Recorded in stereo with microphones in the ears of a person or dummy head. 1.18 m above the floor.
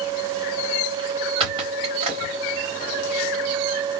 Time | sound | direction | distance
1.4 | a squeak | 35° right (ahead or behind) | 1.2 m